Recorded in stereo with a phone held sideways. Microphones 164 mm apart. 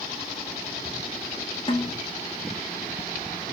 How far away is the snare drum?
About 1.6 m.